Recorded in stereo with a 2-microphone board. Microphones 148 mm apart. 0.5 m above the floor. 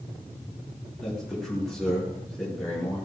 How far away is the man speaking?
About 7 m.